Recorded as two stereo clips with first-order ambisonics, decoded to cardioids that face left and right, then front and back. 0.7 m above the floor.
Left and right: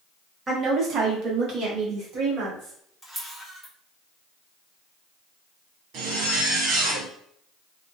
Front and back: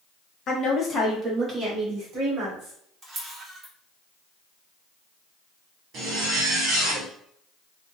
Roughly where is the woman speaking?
Ahead right.